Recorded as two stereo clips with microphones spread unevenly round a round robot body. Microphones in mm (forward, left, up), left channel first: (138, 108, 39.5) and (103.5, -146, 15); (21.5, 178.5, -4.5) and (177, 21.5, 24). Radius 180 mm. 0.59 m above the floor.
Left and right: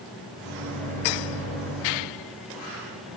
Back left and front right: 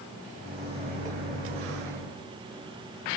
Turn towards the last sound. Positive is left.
turn(degrees=0)